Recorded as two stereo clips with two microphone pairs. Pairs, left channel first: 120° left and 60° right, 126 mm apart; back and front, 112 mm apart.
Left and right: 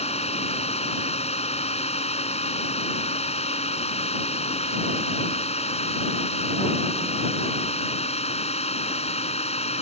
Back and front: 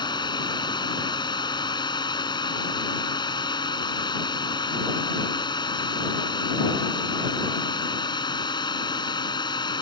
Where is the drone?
140° left.